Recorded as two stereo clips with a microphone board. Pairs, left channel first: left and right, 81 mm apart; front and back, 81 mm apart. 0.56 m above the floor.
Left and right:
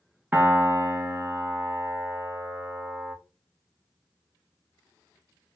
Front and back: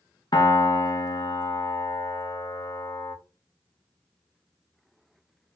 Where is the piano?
25° right, 0.6 m.